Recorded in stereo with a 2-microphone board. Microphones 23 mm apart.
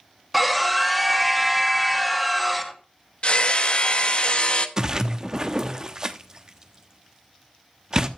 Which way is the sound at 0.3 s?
Centre (ahead or behind).